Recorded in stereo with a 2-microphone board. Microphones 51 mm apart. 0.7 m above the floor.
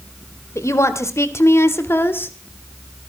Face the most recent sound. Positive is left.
turn(degrees=40)  # may be behind; listen again after turning